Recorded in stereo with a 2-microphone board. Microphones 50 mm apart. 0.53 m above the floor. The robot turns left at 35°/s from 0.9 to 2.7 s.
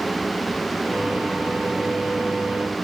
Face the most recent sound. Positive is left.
No sound to turn to.